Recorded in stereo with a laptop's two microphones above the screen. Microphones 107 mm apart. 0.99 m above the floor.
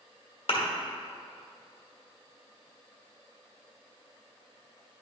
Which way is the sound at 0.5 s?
65° left (ahead or behind).